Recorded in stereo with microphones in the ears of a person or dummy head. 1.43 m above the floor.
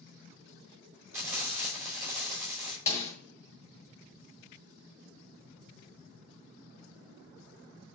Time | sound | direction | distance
1.1 | frying | 20° right (ahead or behind) | 5 m
2.9 | a snare drum | 15° left (ahead or behind) | 2 m